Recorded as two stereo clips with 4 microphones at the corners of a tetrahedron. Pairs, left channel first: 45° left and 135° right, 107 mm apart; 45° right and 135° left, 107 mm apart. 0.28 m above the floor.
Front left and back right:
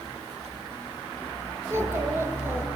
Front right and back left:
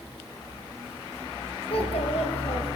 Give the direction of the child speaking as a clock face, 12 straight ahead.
2 o'clock.